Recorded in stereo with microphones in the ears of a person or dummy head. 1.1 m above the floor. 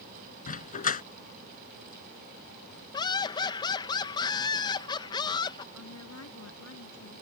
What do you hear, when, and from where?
0.5 s a dog barking: 40° left (ahead or behind)
2.9 s laughter: 20° left (ahead or behind)
5.7 s a woman speaking: 85° left